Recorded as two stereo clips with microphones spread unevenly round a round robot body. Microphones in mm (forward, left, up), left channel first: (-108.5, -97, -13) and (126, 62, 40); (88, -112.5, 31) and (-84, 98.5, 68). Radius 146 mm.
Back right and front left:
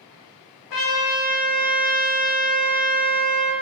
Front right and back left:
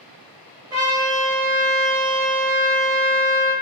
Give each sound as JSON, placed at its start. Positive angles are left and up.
{"t": 0.7, "sound": "a trumpet", "azimuth_deg": -155, "distance_m": 1.2}